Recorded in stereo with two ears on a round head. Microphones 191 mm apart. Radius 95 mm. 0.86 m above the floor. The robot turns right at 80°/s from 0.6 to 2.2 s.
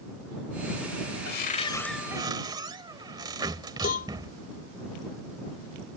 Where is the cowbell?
40° left (ahead or behind).